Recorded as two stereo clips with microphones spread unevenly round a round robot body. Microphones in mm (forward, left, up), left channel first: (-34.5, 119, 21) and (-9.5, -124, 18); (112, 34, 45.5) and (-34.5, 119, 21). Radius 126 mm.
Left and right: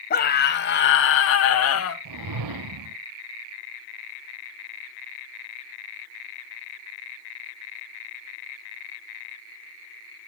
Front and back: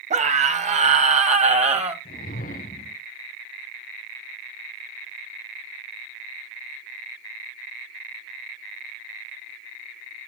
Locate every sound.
0.1 s a scream: 140° left, 1.9 m; by 1.9 s 110° left, 2.5 m
2.0 s a whoosh: 90° right, 0.6 m